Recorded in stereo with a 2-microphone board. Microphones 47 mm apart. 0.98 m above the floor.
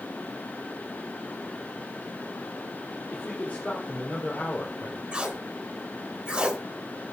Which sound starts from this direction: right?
Tape being pulled, at 5.1 s.